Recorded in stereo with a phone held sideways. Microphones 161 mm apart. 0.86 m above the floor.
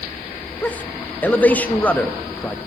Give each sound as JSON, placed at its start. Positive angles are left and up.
{"t": 0.6, "sound": "a man speaking", "side_deg": 10, "distance_m": 0.7}